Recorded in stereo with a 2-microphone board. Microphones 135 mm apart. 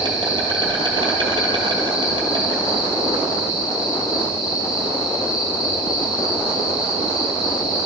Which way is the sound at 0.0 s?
35° right (ahead or behind).